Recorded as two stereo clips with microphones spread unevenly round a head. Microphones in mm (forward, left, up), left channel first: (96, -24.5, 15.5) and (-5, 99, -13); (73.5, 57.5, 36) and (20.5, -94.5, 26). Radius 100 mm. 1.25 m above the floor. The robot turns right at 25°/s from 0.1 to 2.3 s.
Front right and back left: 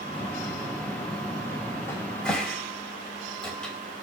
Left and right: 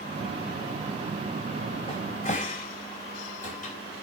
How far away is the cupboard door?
About 3.5 m.